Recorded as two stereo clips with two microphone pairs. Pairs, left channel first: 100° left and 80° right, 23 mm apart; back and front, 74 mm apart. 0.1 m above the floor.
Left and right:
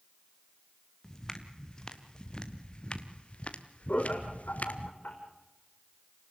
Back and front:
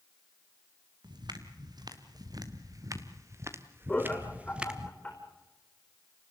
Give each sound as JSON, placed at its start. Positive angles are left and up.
{"t": 1.0, "sound": "footsteps", "azimuth_deg": 25, "distance_m": 3.0}
{"t": 3.9, "sound": "laughter", "azimuth_deg": 105, "distance_m": 4.5}